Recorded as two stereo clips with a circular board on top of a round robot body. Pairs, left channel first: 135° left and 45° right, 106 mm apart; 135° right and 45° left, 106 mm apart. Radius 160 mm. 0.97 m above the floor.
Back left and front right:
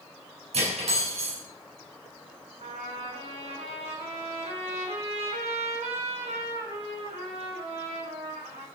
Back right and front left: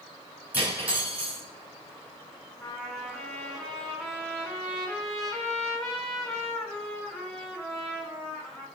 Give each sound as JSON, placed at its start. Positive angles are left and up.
{"t": 0.5, "sound": "cutlery clinking", "azimuth_deg": -30, "distance_m": 4.5}
{"t": 2.6, "sound": "a trumpet", "azimuth_deg": -45, "distance_m": 3.5}